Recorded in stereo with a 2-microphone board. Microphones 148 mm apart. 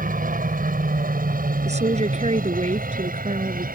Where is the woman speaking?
50° right (ahead or behind).